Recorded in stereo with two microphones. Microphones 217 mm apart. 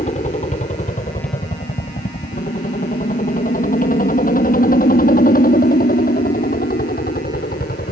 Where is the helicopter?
35° left (ahead or behind); by 7.9 s 45° left (ahead or behind).